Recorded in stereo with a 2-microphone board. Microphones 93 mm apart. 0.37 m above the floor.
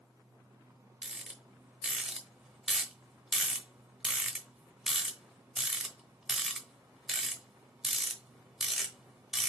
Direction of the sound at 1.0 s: Centre (ahead or behind).